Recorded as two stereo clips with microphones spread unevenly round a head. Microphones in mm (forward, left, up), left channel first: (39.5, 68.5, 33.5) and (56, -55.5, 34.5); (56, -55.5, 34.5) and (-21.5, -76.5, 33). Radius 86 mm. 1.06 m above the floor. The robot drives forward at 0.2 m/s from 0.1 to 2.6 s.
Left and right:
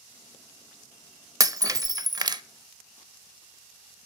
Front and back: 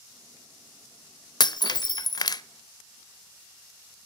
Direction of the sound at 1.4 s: 15° right.